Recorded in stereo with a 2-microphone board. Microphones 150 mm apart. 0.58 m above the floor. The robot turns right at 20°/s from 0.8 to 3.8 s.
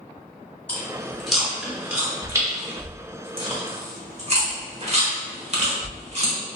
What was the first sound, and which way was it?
Chewing, 10° left (ahead or behind).